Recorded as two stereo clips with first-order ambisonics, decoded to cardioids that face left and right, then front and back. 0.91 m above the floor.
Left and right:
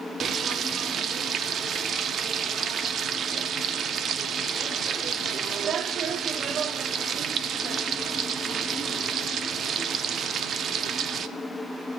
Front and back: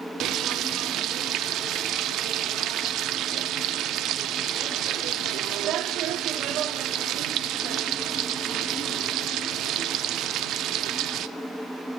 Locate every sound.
0.2 s frying: 145° right, 0.5 m